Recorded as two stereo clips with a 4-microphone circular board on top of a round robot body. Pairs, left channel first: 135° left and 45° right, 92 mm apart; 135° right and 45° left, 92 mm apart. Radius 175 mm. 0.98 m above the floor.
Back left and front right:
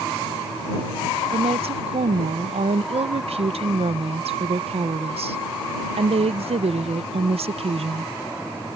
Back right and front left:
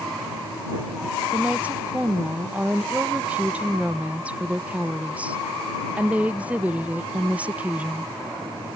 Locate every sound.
1.3 s a woman speaking: 30° right